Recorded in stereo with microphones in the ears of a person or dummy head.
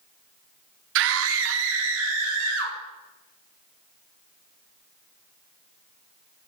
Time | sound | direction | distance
0.9 | a scream | 65° right (ahead or behind) | 0.5 m